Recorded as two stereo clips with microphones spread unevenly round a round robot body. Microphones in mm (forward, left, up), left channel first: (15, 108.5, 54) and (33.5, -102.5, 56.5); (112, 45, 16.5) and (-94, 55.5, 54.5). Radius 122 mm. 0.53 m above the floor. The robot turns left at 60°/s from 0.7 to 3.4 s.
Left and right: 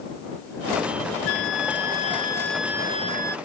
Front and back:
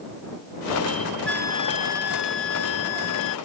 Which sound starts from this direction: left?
A flute, at 1.3 s.